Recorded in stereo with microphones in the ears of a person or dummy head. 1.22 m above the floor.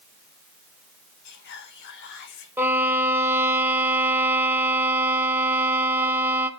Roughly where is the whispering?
Left.